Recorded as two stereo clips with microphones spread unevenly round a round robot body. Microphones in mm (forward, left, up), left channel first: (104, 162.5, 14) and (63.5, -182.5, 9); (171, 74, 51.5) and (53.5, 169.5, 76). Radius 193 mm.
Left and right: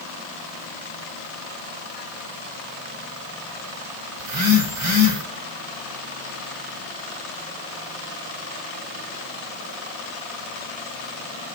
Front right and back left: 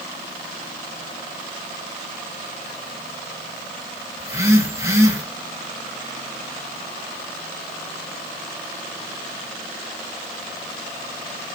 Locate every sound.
4.2 s a phone buzzing: 140° right, 3 m